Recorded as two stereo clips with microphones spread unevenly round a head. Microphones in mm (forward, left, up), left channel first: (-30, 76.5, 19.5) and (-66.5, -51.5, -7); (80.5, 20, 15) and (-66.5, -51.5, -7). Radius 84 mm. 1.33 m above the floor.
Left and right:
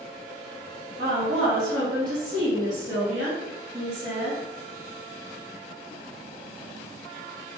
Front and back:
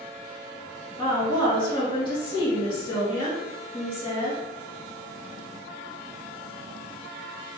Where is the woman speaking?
40° right, 3 m.